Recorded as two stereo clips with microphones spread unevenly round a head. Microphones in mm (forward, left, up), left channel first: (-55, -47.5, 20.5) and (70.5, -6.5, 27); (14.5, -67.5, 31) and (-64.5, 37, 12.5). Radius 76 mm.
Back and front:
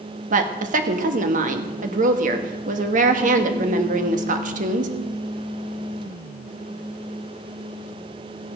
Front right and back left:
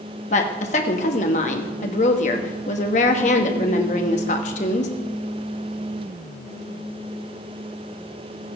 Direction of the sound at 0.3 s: 5° right.